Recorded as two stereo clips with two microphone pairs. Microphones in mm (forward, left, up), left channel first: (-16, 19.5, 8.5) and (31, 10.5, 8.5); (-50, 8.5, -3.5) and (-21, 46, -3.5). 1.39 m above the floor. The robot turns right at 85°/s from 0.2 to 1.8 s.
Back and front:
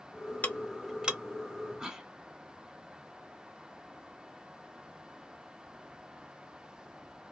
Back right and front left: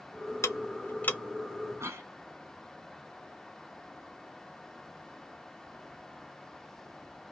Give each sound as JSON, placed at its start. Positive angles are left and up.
{"t": 0.4, "sound": "ticking", "azimuth_deg": -135, "distance_m": 0.6}
{"t": 1.8, "sound": "a cough", "azimuth_deg": 70, "distance_m": 1.3}